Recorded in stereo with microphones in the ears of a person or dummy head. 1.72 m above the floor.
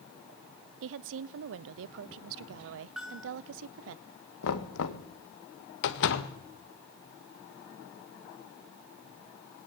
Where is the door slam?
65° left (ahead or behind), 1.5 m.